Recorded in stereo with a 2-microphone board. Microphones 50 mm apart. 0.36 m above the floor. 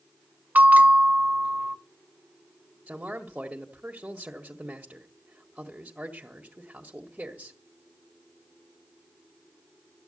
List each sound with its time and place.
0.6 s a bell: 35° right (ahead or behind), 1.4 m
2.9 s a man speaking: 25° right (ahead or behind), 1.7 m